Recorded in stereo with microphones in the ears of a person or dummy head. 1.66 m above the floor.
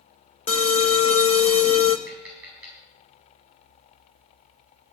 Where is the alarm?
35° left (ahead or behind), 1.1 m.